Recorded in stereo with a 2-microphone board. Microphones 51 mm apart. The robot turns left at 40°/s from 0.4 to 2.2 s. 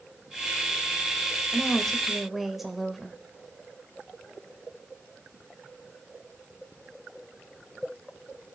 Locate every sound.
1.5 s a woman speaking: 25° left (ahead or behind), 1.4 m; by 3.2 s 5° right (ahead or behind), 1.4 m